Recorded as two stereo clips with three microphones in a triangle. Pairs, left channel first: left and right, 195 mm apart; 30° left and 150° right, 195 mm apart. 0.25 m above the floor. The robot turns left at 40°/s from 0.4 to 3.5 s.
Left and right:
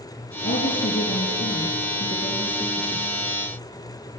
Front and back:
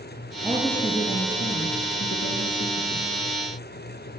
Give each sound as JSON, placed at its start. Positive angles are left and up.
{"t": 0.4, "sound": "a woman speaking", "azimuth_deg": 110, "distance_m": 3.5}